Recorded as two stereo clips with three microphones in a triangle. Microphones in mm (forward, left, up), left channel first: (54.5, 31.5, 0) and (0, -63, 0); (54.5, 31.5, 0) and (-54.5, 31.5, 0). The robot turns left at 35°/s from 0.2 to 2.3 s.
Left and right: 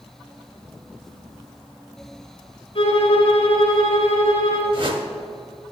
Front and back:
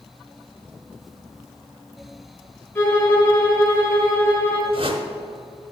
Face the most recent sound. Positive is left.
turn(degrees=-150)